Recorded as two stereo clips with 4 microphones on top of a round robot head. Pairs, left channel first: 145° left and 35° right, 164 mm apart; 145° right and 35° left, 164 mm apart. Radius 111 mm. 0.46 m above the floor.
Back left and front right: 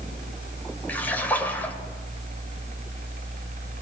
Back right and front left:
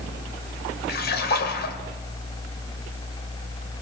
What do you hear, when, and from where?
0.9 s a splash: 135° right, 2.5 m